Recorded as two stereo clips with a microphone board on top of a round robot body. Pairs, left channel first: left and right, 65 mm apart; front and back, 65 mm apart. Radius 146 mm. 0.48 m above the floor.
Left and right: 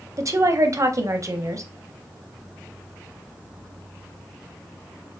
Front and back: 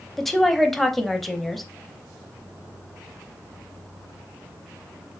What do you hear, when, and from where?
0.2 s a woman speaking: 85° right, 0.9 m